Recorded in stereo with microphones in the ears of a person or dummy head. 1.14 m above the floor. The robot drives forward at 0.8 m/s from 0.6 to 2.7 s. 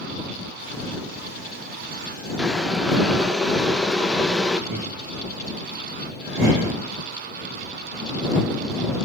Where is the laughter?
45° right (ahead or behind), 3.5 m.